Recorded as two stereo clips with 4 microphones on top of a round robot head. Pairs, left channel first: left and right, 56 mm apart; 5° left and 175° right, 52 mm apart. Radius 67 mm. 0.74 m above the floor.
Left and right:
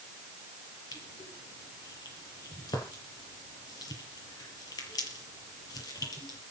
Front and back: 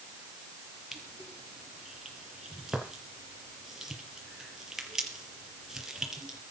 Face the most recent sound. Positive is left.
turn(degrees=105)